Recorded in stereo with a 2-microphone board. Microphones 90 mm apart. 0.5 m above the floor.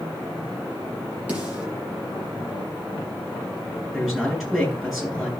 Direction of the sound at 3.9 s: Centre (ahead or behind).